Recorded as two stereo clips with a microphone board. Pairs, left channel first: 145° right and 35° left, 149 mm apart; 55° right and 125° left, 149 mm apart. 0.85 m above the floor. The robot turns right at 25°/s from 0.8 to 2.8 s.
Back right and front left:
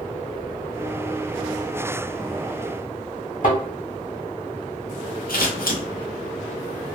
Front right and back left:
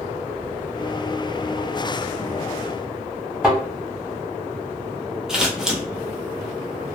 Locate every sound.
3.4 s a thud: 150° right, 1.8 m
5.3 s scissors: 150° right, 0.8 m